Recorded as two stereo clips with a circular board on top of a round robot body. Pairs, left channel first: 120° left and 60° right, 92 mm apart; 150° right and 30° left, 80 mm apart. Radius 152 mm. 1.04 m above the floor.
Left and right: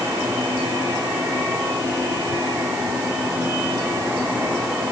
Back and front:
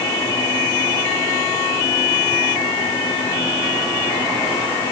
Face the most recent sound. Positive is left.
No sound to turn to.